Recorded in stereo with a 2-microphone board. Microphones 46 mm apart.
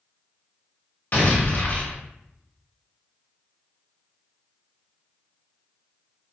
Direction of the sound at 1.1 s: 45° left (ahead or behind).